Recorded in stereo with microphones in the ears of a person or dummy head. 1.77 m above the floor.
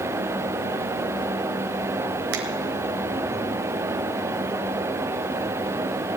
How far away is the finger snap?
About 1.5 m.